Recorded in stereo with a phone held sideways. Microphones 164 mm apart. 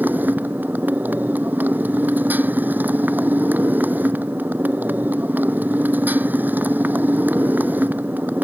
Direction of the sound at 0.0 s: 10° right (ahead or behind).